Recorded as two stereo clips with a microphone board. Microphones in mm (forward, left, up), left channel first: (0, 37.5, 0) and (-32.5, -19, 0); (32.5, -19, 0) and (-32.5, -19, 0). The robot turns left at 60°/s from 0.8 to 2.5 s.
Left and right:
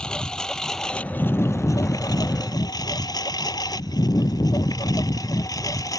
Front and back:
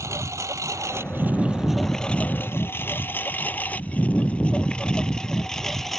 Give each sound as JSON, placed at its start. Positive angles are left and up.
{"t": 0.0, "sound": "a lawn mower", "azimuth_deg": 135}